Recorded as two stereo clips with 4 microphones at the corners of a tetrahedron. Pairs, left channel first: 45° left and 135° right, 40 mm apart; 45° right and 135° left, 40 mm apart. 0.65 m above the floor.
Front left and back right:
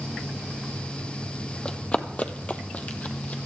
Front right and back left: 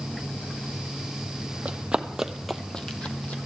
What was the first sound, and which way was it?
Running footsteps, 100° left.